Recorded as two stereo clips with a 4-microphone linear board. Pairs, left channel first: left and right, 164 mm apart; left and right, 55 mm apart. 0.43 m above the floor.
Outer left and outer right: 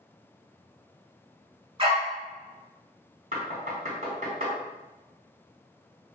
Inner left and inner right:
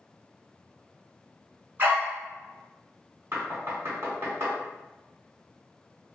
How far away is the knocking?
About 1.5 m.